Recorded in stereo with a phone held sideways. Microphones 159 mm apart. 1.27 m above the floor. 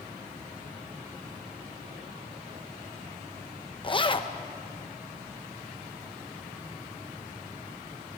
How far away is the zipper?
About 0.9 m.